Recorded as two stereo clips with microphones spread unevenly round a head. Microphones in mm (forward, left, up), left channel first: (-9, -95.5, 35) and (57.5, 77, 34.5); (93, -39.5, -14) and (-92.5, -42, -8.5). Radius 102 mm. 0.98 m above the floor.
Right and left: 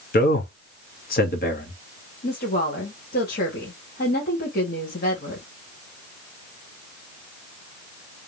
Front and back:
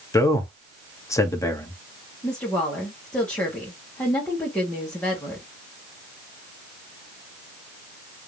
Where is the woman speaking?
75° right, 2 m.